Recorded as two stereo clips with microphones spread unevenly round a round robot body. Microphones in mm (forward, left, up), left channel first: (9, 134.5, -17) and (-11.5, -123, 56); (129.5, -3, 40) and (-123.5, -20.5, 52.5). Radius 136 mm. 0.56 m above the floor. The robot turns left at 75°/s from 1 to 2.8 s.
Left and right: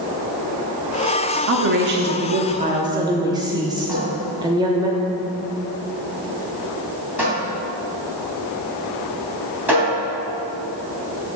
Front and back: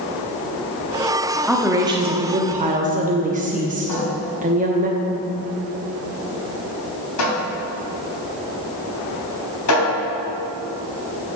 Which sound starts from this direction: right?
A woman speaking, at 1.5 s.